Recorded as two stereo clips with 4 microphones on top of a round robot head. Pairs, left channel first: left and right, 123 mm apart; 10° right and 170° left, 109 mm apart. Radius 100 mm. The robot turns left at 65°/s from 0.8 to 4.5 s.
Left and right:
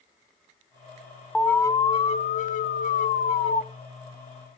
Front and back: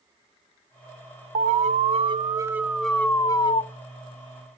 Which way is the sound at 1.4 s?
175° left.